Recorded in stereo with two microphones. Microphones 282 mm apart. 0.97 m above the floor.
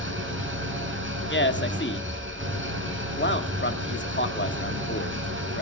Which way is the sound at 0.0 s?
40° right (ahead or behind).